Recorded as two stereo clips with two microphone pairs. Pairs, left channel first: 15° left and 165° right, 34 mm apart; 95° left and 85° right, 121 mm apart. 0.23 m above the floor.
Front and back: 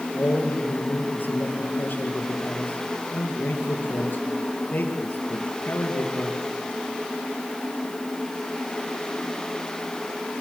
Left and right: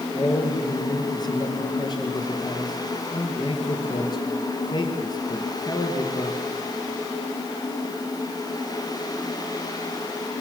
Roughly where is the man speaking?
Ahead left.